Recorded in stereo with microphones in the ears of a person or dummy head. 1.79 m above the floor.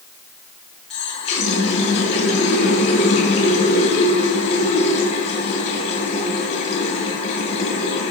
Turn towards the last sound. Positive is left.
turn(degrees=40)  # may be behind; listen again after turning